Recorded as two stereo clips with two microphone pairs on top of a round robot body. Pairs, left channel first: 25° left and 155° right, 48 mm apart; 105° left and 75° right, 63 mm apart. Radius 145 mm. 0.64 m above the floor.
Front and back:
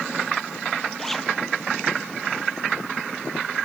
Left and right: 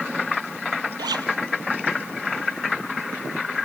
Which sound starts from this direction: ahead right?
A zipper, at 1.0 s.